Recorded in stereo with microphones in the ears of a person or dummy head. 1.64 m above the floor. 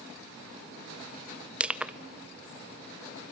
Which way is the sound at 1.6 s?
5° right (ahead or behind).